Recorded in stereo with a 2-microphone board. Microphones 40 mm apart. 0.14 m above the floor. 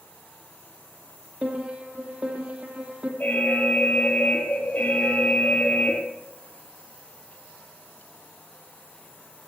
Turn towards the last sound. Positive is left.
turn(degrees=50)  # may be behind; listen again after turning